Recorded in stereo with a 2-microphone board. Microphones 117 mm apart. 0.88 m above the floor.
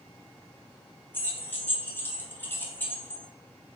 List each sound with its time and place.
1.1 s keys jangling: 15° left (ahead or behind), 0.6 m